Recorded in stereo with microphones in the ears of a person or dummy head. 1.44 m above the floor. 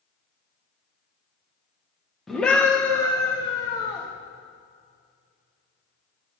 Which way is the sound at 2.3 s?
5° left (ahead or behind).